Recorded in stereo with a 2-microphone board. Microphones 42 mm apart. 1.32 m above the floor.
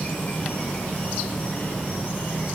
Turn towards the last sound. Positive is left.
turn(degrees=30)  # may be behind; listen again after turning